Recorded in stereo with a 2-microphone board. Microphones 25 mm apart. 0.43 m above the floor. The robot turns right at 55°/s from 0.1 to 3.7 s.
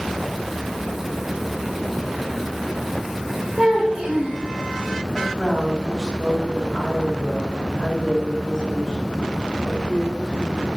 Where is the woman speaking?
5° left (ahead or behind), 3 m.